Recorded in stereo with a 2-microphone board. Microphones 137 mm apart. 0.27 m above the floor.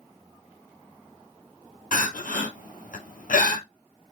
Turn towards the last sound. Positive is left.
turn(degrees=85)